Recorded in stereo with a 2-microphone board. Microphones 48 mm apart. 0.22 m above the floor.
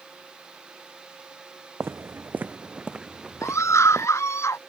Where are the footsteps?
55° right (ahead or behind); by 4.1 s centre (ahead or behind).